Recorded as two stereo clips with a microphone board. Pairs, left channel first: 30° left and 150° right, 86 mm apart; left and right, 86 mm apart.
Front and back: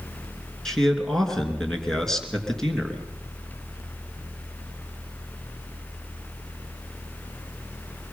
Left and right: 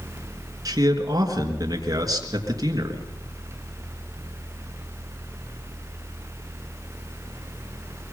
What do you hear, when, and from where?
0.7 s a man speaking: 55° right, 3 m